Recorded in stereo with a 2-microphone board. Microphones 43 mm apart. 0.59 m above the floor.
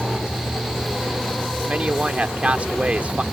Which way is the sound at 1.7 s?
35° right (ahead or behind).